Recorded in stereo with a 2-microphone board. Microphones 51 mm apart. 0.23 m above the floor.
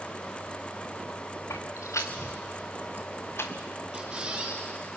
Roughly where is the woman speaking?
No woman speaking in this recording.